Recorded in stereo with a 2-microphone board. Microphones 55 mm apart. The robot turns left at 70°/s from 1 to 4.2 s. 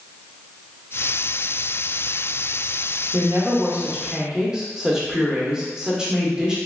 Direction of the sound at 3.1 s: 80° right.